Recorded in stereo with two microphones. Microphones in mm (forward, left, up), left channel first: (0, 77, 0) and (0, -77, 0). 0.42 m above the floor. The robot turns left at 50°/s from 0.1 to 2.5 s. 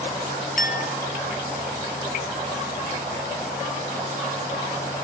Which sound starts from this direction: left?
A clink, at 0.6 s.